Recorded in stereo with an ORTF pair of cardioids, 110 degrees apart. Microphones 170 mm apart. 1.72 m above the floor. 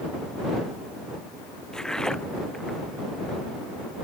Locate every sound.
1.7 s footsteps: 5° left